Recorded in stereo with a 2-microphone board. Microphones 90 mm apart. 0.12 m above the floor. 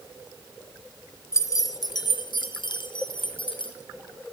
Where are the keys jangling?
35° left (ahead or behind), 1.3 m; by 3.8 s 60° left (ahead or behind), 3 m.